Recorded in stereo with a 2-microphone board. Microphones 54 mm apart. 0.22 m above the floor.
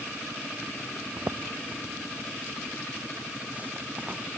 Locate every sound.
1.2 s footsteps: 65° right (ahead or behind); by 4.3 s 25° right (ahead or behind)